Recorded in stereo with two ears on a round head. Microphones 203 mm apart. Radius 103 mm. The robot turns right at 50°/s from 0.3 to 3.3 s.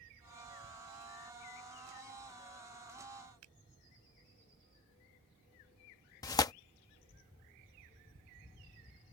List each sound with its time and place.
3.4 s a finger snap: 80° right
6.2 s tearing paper: 15° left (ahead or behind)